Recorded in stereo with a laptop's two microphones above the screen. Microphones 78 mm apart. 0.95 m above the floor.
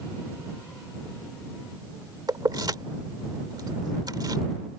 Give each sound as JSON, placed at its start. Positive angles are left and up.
{"t": 2.3, "sound": "keys jangling", "side_deg": -60}